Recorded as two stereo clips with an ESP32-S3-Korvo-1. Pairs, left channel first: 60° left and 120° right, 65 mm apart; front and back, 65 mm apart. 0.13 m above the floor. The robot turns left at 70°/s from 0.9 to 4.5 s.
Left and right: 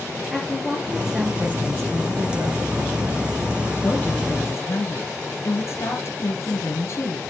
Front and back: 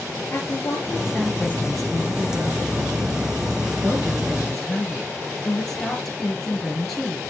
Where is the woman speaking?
25° right, 2.5 m; by 7.2 s 85° left, 2.5 m.